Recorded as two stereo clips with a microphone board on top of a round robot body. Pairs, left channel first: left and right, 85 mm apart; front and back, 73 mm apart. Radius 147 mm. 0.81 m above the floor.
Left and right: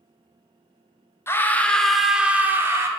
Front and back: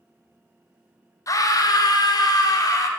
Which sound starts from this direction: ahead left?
A scream, at 1.3 s.